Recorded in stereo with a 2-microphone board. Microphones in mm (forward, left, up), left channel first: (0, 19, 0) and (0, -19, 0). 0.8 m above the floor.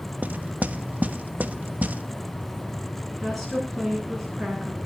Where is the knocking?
45° right (ahead or behind), 1.0 m.